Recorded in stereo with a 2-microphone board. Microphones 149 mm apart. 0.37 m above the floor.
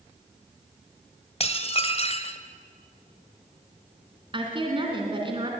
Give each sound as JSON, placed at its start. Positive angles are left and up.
{"t": 1.4, "sound": "dishes clattering", "side_deg": 45, "distance_m": 1.3}
{"t": 4.3, "sound": "a woman speaking", "side_deg": -35, "distance_m": 3.5}